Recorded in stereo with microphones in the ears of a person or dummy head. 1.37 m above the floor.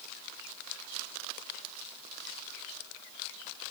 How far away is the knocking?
No knocking in this recording.